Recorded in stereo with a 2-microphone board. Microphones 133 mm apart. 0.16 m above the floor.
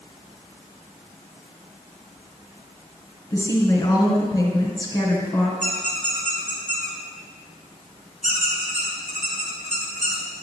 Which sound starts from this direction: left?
A woman speaking, at 3.3 s.